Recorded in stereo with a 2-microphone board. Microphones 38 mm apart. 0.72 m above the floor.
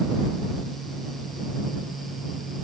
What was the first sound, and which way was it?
Only background noise.